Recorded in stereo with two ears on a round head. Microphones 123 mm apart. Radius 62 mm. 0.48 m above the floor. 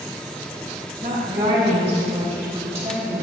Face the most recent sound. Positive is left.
turn(degrees=-20)  # may be behind; listen again after turning